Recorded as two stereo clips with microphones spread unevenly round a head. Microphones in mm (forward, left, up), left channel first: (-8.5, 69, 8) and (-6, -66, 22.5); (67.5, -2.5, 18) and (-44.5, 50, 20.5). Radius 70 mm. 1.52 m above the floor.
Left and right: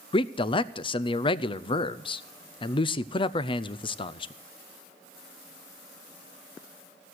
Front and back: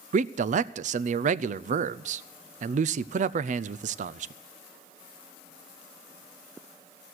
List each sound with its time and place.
0.1 s a man speaking: 140° left, 0.5 m